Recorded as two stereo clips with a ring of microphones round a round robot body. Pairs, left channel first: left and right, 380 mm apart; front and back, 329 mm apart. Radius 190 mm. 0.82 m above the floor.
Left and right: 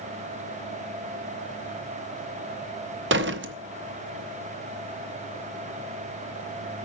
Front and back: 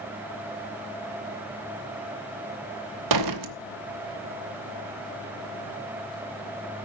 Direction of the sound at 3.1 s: 150° right.